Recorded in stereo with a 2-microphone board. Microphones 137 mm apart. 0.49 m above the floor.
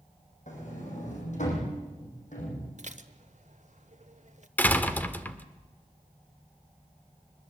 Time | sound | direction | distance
0.5 | a sliding door | 65° left (ahead or behind) | 6 m
2.8 | dishes clattering | 60° right (ahead or behind) | 1.1 m
4.6 | a door slam | 10° left (ahead or behind) | 1.1 m